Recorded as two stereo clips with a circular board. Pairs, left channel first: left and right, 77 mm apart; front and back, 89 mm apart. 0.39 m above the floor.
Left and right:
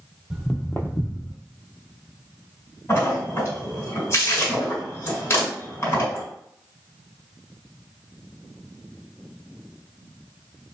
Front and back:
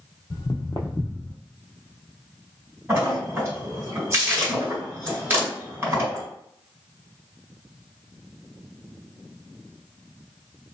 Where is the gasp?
No gasp in this recording.